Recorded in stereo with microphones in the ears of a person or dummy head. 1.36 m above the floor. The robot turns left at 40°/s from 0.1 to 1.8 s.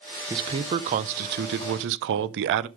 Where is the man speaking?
20° right, 0.6 m; by 2.7 s 80° right, 0.6 m.